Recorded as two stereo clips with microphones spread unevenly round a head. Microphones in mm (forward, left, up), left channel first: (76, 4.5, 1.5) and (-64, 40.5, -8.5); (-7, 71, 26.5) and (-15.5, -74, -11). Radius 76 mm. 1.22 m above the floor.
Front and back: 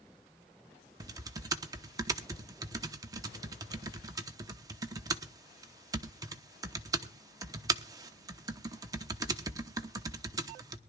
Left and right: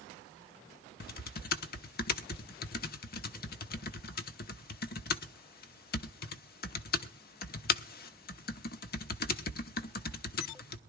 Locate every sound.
1.0 s typing on a keyboard: 105° left, 0.8 m